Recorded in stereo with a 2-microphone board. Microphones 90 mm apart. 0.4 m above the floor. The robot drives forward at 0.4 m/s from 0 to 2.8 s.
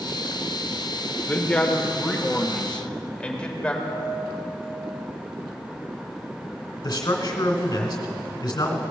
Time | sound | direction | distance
1.3 | a man speaking | 15° left (ahead or behind) | 1.1 m
3.8 | a piano | 60° right (ahead or behind) | 2.5 m
6.8 | a man speaking | 50° left (ahead or behind) | 1.8 m